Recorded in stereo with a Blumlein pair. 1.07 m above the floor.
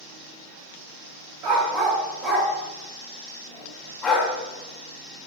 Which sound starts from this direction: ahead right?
A dog barking, at 1.4 s.